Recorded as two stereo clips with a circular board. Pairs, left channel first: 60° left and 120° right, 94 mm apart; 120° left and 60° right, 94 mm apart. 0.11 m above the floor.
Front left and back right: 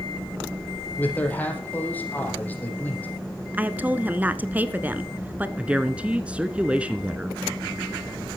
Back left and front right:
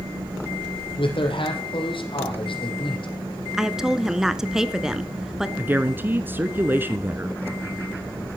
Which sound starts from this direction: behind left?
A man speaking, at 1.0 s.